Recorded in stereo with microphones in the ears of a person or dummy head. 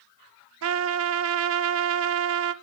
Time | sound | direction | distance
0.6 | a trumpet | 75° right (ahead or behind) | 0.6 m